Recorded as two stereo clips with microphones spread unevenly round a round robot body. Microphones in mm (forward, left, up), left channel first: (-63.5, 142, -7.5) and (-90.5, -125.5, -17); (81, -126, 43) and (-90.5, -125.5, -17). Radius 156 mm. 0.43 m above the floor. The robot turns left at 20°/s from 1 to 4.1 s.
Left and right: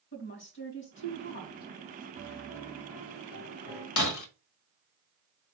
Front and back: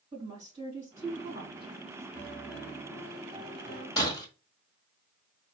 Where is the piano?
120° left, 4 m; by 3.9 s 85° left, 4 m.